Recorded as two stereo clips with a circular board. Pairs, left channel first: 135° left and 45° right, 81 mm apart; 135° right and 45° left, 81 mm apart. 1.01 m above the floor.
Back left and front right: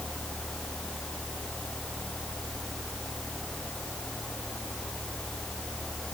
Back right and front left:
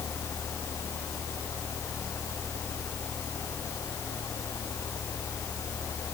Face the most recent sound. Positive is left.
No sound to turn to.